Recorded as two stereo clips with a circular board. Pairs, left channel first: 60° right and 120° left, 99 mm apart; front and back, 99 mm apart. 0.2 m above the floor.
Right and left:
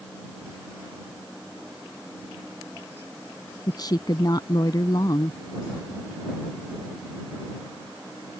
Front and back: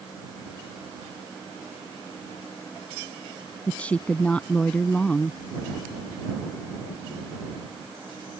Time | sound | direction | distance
3.7 | a woman speaking | 70° right | ?